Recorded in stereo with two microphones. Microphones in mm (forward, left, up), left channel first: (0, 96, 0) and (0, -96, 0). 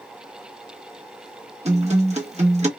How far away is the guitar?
About 1.1 m.